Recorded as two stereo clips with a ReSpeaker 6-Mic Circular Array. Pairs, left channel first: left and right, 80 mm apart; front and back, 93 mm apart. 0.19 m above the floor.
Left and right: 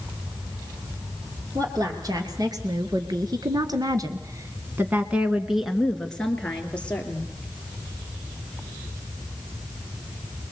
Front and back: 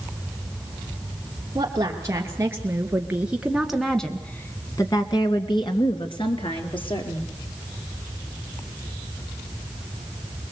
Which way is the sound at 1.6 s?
125° right.